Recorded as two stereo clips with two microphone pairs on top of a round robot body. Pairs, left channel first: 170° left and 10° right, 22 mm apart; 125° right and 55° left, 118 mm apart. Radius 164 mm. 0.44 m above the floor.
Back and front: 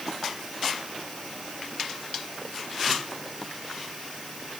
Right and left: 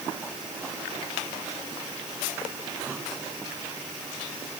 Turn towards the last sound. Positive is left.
No sound to turn to.